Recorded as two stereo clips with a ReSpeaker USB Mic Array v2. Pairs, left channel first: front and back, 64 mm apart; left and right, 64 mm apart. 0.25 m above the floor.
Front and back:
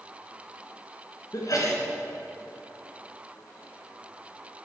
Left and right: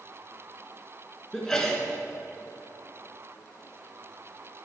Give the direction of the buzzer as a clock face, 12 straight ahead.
I don't hear a buzzer.